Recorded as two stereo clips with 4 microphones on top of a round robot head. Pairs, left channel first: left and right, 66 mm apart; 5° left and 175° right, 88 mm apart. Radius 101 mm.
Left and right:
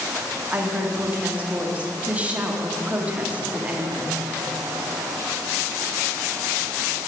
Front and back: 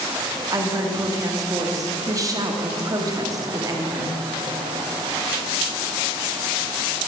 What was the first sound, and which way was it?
A woman speaking, 150° right.